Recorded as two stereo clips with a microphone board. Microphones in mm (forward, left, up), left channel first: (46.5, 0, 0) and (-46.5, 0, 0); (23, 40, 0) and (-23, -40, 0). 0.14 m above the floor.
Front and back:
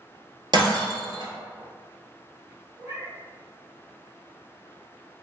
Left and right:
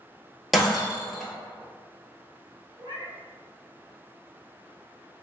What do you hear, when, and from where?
0.5 s breaking glass: 150° left, 0.7 m
2.8 s a cat meowing: 140° right, 1.6 m